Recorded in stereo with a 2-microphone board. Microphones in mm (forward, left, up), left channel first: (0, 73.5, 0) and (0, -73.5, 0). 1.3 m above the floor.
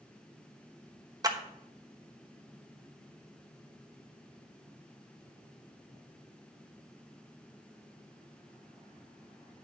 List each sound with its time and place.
1.2 s a clap: 25° right (ahead or behind), 1.0 m